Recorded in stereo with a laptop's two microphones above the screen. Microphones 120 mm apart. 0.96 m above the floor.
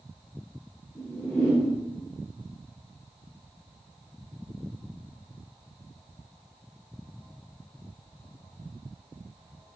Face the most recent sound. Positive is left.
turn(degrees=10)  # may be behind; listen again after turning